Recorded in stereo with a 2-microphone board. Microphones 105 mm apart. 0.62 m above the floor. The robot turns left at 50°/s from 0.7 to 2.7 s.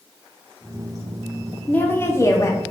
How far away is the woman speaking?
About 0.6 m.